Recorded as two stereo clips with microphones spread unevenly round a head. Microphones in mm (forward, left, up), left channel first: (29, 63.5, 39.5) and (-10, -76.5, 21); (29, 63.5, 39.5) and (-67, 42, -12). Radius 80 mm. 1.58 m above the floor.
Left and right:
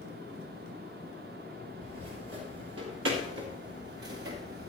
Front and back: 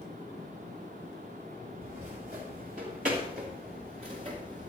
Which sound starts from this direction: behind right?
Footsteps, at 1.8 s.